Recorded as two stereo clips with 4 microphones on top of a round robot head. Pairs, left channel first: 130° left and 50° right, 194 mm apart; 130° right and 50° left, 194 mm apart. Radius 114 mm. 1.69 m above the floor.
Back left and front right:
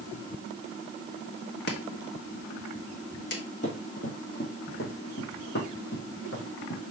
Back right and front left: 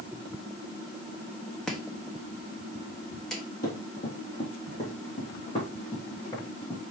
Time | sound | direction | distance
1.7 | chopping | 140° left | 1.2 m
3.6 | running footsteps | straight behind | 3 m